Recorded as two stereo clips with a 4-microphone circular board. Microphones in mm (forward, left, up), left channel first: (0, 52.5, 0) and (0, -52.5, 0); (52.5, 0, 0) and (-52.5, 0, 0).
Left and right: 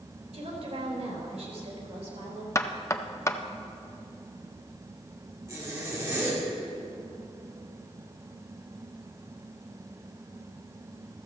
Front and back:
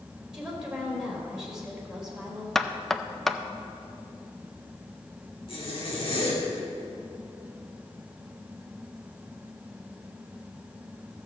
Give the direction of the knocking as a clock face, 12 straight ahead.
9 o'clock.